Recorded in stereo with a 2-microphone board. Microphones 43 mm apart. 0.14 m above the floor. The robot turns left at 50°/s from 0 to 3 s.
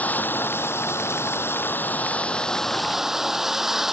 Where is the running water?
140° left; by 3.9 s 10° right.